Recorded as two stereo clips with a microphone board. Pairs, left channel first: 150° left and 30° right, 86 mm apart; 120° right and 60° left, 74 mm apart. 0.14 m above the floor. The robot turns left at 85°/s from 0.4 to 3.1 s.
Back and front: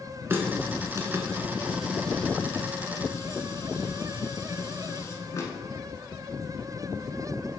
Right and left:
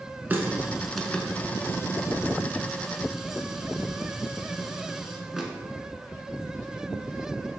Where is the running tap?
10° left, 0.9 m; by 5.5 s 140° left, 0.9 m.